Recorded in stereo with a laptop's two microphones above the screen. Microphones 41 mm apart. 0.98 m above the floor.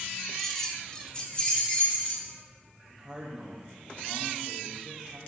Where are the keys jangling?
5° left (ahead or behind), 0.7 m; by 2.4 s 30° left (ahead or behind), 2.5 m.